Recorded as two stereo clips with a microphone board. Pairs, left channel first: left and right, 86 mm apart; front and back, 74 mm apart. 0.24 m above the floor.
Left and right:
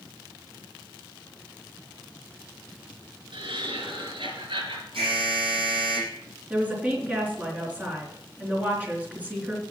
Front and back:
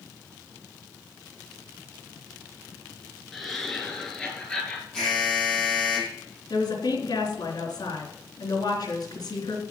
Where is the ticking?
I don't hear ticking.